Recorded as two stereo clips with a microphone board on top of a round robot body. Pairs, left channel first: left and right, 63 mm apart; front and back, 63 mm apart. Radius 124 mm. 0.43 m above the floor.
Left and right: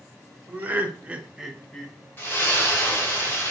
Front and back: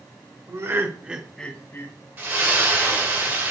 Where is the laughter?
150° right, 1.3 m; by 1.9 s 10° left, 1.1 m.